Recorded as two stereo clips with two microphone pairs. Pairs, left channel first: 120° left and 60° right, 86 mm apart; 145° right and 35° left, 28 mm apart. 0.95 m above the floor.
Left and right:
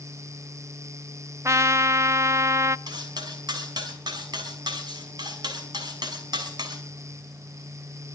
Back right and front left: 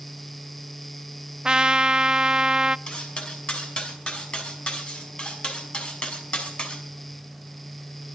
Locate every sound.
1.4 s a trumpet: 15° right, 0.6 m
2.9 s cutlery clinking: 95° right, 5.5 m